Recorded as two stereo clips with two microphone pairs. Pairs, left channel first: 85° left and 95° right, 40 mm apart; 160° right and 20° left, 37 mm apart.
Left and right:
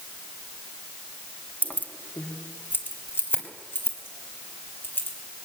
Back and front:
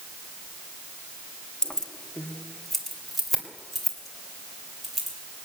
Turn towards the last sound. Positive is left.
turn(degrees=110)